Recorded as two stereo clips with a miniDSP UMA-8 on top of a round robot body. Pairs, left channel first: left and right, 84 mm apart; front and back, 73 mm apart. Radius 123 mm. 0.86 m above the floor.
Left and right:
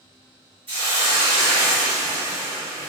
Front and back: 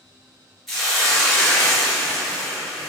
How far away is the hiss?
About 1.6 m.